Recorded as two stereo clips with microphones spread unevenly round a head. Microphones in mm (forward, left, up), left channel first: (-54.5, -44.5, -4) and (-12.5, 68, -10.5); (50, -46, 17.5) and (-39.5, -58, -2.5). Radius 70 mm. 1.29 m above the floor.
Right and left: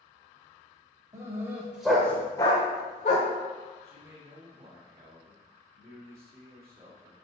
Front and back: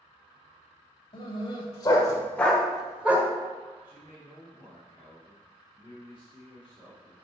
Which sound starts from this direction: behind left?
A man speaking, at 3.8 s.